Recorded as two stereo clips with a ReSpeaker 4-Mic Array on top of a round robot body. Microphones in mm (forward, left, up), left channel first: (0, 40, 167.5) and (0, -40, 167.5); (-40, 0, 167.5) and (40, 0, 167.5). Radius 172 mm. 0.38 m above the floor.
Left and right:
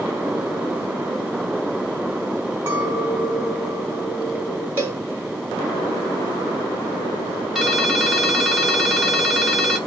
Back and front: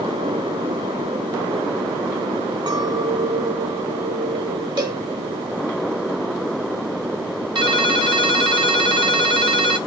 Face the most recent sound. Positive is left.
turn(degrees=0)